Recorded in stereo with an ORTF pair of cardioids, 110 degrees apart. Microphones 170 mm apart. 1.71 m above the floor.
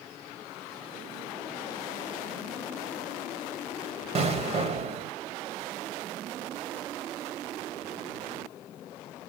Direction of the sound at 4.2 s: 40° right.